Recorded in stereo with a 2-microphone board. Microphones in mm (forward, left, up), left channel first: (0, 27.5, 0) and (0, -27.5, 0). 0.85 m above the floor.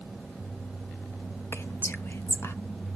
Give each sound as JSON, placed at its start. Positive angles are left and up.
{"t": 1.5, "sound": "whispering", "side_deg": 45, "distance_m": 0.7}